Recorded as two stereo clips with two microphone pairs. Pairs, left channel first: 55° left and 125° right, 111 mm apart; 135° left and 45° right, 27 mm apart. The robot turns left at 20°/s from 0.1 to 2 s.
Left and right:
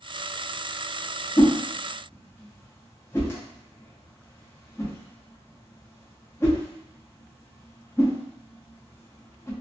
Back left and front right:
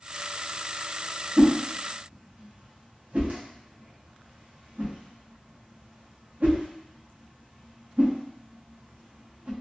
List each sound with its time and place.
1.4 s a whoosh: straight ahead, 0.7 m; by 9.5 s 10° right, 0.7 m